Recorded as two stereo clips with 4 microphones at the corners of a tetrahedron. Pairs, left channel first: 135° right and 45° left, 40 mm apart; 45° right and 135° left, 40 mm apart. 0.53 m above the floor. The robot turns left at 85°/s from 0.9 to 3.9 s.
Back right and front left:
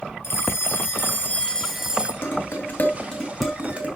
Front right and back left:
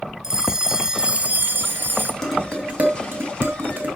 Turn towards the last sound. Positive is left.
turn(degrees=95)